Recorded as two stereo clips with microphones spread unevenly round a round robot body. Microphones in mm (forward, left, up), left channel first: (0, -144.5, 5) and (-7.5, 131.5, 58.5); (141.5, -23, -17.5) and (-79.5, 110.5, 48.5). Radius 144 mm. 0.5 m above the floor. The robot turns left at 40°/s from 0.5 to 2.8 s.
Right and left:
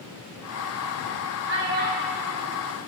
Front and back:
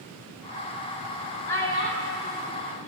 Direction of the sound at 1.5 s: 45° left.